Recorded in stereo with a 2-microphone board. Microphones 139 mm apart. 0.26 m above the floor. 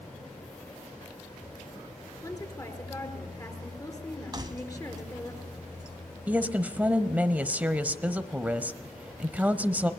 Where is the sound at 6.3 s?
10° right (ahead or behind), 1.0 m.